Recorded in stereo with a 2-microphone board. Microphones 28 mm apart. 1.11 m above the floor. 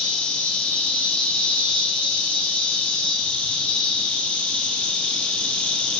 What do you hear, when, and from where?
0.0 s an insect: 45° left (ahead or behind), 1.3 m